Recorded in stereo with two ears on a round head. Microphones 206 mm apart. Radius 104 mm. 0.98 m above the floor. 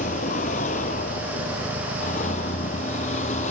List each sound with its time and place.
0.0 s a vehicle: 30° left (ahead or behind)